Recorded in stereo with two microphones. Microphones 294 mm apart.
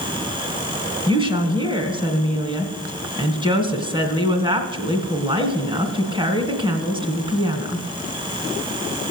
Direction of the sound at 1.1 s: 15° right (ahead or behind).